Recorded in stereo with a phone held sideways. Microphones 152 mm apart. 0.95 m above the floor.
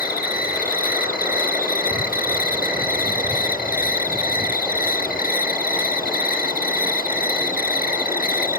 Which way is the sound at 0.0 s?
70° left (ahead or behind).